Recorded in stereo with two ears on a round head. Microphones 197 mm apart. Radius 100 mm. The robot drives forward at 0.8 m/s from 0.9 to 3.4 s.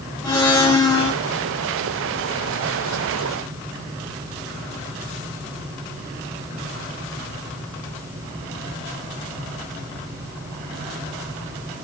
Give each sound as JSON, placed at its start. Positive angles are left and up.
{"t": 0.2, "sound": "a blender", "side_deg": 20, "distance_m": 8.5}